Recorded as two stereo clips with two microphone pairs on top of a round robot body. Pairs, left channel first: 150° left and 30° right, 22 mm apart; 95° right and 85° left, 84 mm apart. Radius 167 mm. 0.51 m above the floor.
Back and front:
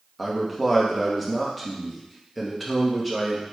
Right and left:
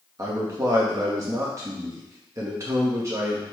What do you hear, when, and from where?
0.2 s a man speaking: 75° left, 1.0 m